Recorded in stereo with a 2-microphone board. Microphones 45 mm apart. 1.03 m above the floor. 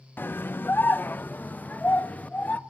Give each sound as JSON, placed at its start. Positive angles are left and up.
{"t": 0.2, "sound": "a scream", "side_deg": 45, "distance_m": 0.9}